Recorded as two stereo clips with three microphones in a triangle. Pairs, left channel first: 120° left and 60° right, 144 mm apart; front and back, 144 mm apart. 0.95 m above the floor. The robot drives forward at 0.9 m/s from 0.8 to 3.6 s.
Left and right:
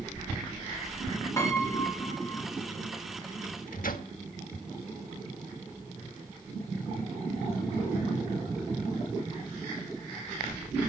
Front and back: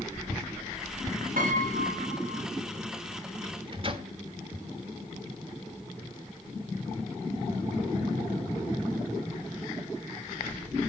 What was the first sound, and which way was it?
A piano, 170° right.